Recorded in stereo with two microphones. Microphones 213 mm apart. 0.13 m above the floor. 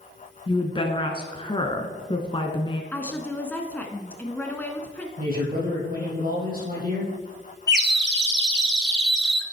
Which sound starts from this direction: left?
A woman speaking, at 0.5 s.